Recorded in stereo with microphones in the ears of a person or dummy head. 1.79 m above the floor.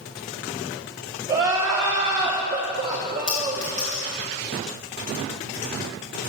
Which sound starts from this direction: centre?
A clink, at 3.3 s.